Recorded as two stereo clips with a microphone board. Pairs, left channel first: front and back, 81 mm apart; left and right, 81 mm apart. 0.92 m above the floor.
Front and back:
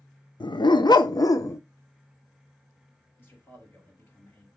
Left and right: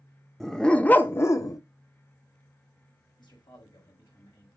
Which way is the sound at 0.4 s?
5° left.